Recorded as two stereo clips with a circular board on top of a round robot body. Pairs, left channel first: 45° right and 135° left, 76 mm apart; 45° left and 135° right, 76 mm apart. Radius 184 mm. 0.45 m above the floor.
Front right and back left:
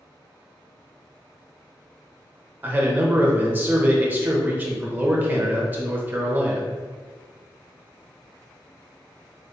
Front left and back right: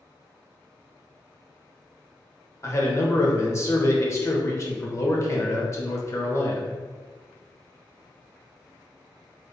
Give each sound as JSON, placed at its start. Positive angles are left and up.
{"t": 2.6, "sound": "a man speaking", "azimuth_deg": 80, "distance_m": 1.1}